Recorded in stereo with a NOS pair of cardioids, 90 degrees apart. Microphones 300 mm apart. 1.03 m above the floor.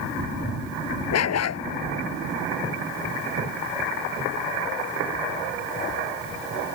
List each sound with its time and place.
1.1 s a dog barking: 55° left